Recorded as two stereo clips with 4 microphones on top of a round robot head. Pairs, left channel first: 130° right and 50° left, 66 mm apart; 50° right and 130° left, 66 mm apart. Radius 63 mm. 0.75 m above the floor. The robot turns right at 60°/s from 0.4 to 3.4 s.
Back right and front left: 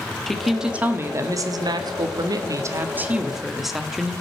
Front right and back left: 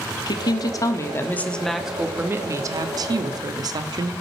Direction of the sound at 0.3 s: 40° right.